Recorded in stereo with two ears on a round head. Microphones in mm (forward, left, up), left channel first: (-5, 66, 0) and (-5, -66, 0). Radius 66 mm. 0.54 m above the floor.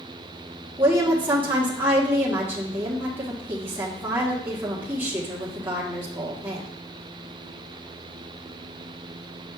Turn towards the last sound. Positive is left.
turn(degrees=-15)  # may be behind; listen again after turning